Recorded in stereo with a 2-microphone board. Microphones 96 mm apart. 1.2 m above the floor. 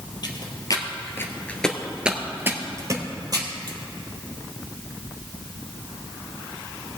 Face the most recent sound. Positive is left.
turn(degrees=-45)  # may be behind; listen again after turning